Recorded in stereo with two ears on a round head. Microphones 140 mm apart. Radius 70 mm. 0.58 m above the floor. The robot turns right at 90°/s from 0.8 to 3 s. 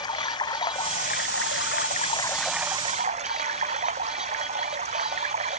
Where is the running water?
25° left; by 5.6 s 135° right.